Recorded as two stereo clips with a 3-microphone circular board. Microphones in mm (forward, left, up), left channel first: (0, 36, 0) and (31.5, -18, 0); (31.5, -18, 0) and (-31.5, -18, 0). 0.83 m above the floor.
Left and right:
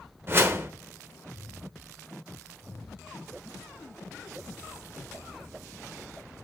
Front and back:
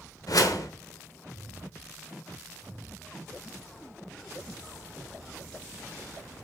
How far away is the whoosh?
About 1.0 m.